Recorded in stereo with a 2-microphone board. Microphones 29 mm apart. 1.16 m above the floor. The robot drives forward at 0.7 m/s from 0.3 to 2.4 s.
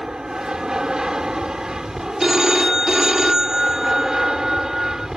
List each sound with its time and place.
0.0 s an aircraft: 25° right (ahead or behind); by 5.2 s 20° right (ahead or behind)
2.2 s a phone ringing: 20° right (ahead or behind)